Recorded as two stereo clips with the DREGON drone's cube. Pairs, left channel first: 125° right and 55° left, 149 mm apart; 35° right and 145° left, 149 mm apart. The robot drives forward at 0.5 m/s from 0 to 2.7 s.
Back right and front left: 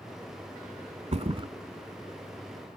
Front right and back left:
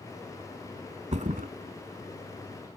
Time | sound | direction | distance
1.1 | a thud | 100° left | 0.7 m